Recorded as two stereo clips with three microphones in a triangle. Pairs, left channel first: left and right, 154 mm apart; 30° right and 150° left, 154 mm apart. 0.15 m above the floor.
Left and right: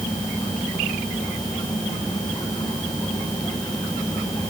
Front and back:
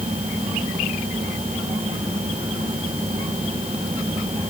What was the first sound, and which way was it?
Only background noise.